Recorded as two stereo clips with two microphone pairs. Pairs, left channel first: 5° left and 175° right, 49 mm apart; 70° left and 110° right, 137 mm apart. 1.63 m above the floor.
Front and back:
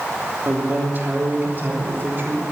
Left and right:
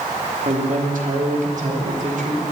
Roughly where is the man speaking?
Behind right.